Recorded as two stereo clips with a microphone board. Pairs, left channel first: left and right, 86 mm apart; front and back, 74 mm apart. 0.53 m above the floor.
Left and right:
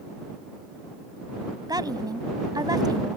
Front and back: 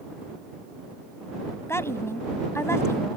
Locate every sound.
1.7 s a woman speaking: 50° right